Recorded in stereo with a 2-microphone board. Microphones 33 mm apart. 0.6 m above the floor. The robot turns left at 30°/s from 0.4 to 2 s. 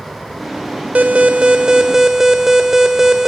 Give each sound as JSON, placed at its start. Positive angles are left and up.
{"t": 0.9, "sound": "an alarm", "azimuth_deg": -135, "distance_m": 1.5}